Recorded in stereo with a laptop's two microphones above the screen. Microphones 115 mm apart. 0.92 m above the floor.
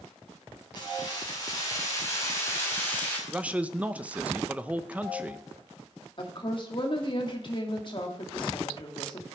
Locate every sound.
0.8 s keys jangling: 35° left (ahead or behind), 5 m; by 3.2 s 15° left (ahead or behind), 4 m
3.3 s a man speaking: 10° right (ahead or behind), 0.7 m
6.2 s a woman speaking: 45° left (ahead or behind), 1.8 m